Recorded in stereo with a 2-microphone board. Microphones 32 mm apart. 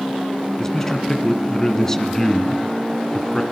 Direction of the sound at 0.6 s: 20° left (ahead or behind).